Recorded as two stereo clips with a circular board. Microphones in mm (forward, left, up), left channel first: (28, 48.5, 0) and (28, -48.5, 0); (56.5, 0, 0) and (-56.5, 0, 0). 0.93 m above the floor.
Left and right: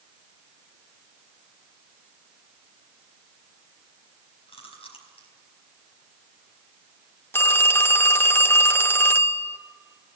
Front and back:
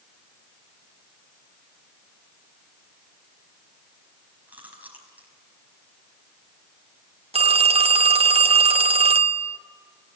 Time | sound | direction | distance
4.5 | chewing | 105° left | 4.5 m
7.3 | a phone ringing | 155° left | 0.6 m